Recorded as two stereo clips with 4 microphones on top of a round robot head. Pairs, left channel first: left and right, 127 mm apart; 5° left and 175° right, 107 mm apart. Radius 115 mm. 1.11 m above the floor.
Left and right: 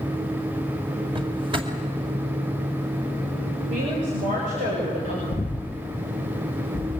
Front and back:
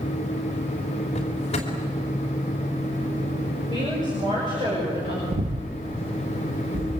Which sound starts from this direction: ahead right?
A drawer, at 1.1 s.